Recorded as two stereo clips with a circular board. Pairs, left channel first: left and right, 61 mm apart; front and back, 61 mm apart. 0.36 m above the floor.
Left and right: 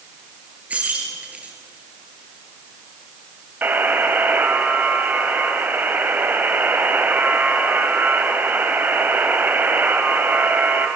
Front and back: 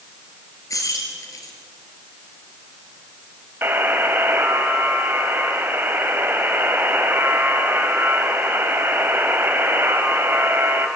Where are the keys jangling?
25° right, 4.5 m.